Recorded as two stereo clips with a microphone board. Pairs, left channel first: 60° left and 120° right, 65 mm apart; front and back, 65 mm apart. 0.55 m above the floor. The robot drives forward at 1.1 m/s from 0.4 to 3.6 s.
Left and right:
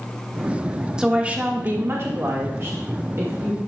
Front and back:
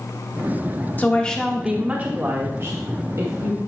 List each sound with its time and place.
1.0 s a woman speaking: 50° right, 1.2 m; by 3.6 s 165° right, 2.5 m